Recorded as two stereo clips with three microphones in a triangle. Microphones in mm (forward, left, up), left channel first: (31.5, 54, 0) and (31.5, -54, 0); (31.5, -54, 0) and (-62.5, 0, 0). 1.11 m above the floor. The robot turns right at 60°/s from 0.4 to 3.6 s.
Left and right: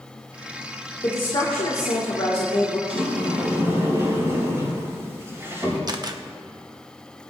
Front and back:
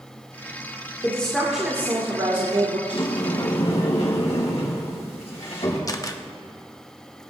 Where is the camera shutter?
65° right, 0.8 m.